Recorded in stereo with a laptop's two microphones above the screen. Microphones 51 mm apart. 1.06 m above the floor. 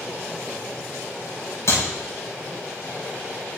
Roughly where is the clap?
Left.